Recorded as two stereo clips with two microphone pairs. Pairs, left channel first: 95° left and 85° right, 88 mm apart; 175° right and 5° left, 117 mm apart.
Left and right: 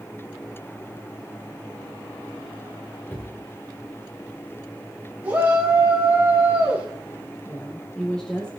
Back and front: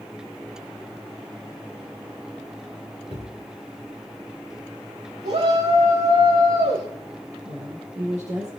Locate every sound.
3.1 s a cupboard door: 30° left, 8 m
5.2 s a shout: 10° right, 7.5 m
7.5 s a woman speaking: 15° left, 4.5 m